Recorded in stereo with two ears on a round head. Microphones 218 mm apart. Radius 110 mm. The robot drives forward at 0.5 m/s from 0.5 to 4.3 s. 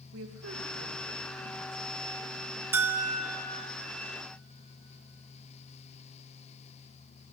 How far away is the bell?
About 0.9 m.